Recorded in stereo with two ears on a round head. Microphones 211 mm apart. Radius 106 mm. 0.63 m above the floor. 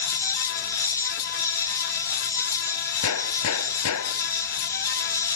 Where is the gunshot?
70° left (ahead or behind).